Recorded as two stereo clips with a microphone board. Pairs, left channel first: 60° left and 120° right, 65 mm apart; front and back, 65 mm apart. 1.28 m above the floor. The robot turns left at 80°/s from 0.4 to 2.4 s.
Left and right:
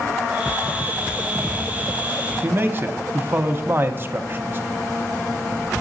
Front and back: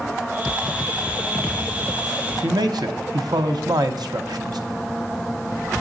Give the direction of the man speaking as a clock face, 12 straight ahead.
6 o'clock.